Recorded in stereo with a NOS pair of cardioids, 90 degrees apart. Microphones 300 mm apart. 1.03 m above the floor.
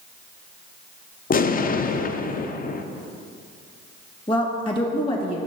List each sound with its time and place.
1.3 s an explosion: 30° left, 0.5 m
4.3 s a woman speaking: 20° left, 1.7 m